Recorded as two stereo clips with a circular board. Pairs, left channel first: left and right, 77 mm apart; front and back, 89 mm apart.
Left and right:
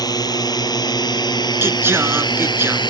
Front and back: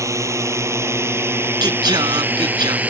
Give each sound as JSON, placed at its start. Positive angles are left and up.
{"t": 0.0, "sound": "a drone", "azimuth_deg": 125}
{"t": 1.6, "sound": "singing", "azimuth_deg": -145}